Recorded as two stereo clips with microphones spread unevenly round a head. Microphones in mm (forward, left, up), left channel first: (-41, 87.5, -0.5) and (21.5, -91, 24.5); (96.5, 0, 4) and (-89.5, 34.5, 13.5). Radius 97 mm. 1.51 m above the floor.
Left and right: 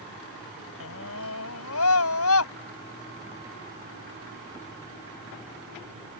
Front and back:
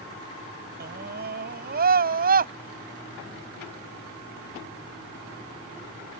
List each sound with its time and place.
0.8 s a scream: 130° left; by 2.5 s 125° left